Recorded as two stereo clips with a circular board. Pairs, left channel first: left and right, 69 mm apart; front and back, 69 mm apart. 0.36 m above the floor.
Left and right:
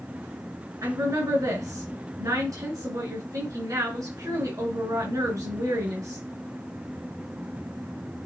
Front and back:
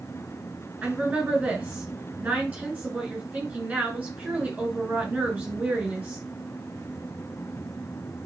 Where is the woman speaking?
110° right, 3 m.